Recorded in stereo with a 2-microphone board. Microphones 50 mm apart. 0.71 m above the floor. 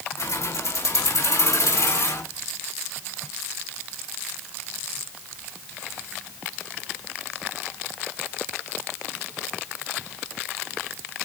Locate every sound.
0.2 s keys jangling: 80° left, 4 m; by 2.2 s 75° left (ahead or behind), 5 m